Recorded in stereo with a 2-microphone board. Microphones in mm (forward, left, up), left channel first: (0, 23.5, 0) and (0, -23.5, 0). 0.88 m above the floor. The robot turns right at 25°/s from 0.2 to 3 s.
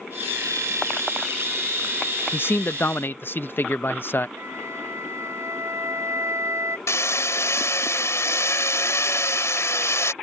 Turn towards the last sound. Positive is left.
turn(degrees=80)